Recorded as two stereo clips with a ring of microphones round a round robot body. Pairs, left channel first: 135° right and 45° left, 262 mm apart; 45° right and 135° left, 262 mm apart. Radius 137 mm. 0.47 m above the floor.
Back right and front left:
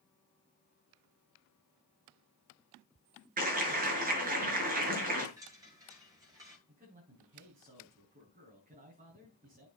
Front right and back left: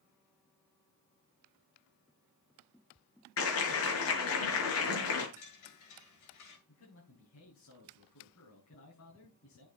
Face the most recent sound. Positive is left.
turn(degrees=-15)